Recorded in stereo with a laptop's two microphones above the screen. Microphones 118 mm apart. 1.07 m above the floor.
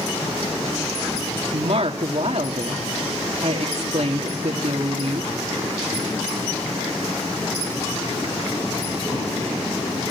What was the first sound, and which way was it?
A woman speaking, 65° right (ahead or behind).